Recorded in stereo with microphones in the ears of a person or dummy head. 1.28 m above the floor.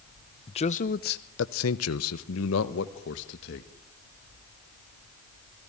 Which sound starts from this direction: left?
A man speaking, at 0.5 s.